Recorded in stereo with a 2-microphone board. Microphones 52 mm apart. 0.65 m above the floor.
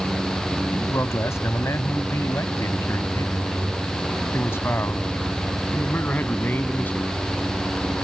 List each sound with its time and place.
0.7 s a man speaking: 80° left; by 7.1 s 35° left (ahead or behind)